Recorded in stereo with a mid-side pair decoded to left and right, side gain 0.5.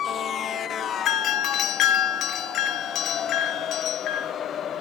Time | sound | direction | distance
1.1 | a doorbell | 65° left | 0.8 m